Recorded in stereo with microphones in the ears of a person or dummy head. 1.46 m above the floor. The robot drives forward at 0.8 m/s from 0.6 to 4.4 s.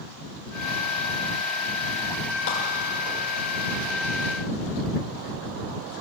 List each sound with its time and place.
2.5 s a clap: 65° left (ahead or behind), 6 m